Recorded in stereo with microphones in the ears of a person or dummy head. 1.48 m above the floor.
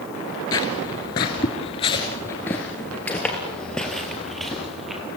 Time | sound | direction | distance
0.5 | footsteps | 20° left (ahead or behind) | 1.6 m